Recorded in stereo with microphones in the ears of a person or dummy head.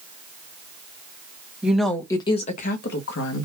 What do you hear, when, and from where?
1.6 s a woman speaking: 5° right (ahead or behind), 0.9 m; by 3.5 s 75° left (ahead or behind), 1.1 m